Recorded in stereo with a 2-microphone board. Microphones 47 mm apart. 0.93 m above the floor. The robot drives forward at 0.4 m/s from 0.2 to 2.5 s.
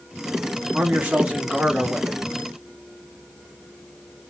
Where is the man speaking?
30° right (ahead or behind), 1.1 m; by 2.2 s 20° right (ahead or behind), 1.6 m.